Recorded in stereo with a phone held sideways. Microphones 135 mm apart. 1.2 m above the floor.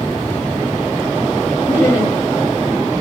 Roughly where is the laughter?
Centre.